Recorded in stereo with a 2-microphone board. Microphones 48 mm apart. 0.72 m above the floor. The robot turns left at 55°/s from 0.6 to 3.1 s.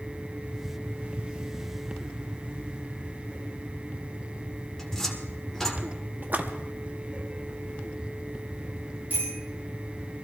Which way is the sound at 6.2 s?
40° right (ahead or behind).